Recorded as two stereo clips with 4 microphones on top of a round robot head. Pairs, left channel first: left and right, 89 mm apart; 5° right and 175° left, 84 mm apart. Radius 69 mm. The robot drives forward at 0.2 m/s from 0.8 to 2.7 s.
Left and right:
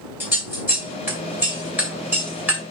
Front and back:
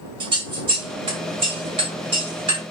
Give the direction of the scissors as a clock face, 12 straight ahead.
5 o'clock.